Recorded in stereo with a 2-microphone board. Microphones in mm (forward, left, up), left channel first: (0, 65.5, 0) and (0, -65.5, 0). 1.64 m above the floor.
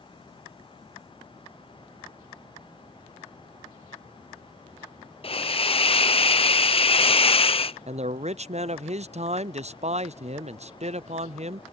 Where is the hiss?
45° left (ahead or behind).